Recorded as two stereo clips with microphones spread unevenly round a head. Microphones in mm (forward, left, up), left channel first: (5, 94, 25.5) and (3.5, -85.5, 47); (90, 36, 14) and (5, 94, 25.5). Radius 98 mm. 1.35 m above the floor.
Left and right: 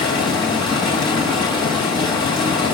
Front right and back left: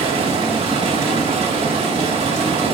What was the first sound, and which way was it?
Running water, 160° left.